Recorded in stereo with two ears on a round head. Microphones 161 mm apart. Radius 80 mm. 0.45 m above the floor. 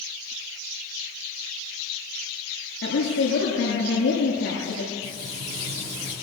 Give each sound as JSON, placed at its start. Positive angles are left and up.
{"t": 2.8, "sound": "a woman speaking", "side_deg": 60, "distance_m": 8.5}
{"t": 5.0, "sound": "frying", "side_deg": -35, "distance_m": 9.5}